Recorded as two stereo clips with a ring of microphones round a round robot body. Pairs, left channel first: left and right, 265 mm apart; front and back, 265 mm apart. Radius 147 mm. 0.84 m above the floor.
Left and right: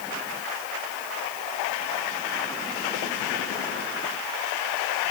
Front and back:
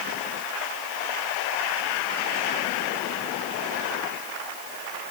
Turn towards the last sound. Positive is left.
No sound to turn to.